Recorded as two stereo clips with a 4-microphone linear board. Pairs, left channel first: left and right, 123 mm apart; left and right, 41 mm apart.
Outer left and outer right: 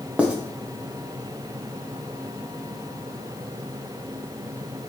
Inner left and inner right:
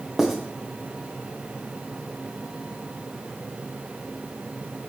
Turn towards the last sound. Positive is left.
turn(degrees=-10)  # may be behind; listen again after turning